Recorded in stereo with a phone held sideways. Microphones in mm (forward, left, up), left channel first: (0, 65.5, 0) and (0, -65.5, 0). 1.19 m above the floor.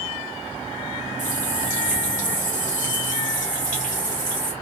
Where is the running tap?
70° left (ahead or behind), 1.3 m.